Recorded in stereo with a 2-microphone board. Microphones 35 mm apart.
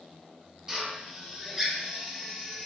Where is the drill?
25° right (ahead or behind), 1.9 m.